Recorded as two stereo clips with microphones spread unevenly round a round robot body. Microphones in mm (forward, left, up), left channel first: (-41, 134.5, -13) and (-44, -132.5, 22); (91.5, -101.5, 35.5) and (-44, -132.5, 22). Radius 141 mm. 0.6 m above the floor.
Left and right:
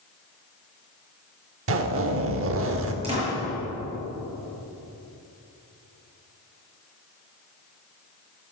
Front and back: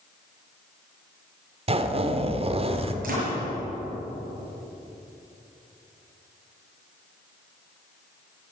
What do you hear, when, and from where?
1.7 s a zipper: 130° right, 1.6 m
3.0 s a door slam: 160° right, 7.5 m